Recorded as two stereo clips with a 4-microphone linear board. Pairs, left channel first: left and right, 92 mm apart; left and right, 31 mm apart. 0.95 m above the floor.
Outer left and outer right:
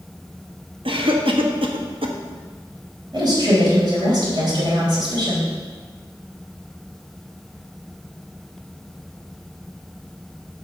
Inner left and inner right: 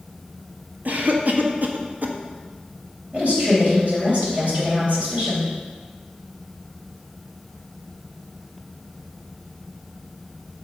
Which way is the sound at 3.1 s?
50° right (ahead or behind).